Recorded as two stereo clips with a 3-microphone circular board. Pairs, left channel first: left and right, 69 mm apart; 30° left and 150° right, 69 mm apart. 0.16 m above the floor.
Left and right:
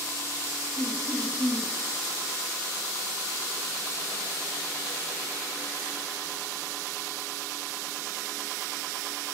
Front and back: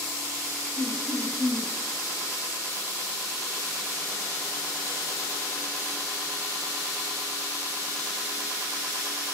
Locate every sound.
0.8 s laughter: 145° left, 3.5 m